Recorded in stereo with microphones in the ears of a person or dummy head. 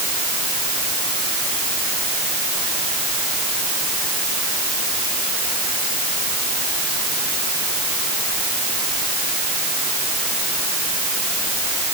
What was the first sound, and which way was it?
Only background noise.